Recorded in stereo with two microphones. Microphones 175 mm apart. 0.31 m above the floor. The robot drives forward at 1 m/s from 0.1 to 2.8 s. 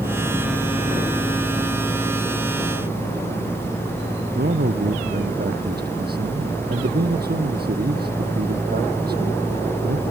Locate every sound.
4.3 s a man speaking: 65° right (ahead or behind)